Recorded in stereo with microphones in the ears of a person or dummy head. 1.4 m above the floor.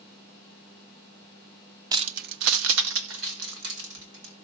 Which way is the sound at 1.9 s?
20° right (ahead or behind).